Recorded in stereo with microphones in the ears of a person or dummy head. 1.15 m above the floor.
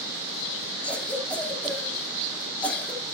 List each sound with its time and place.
0.8 s a cough: 5° left (ahead or behind), 2.5 m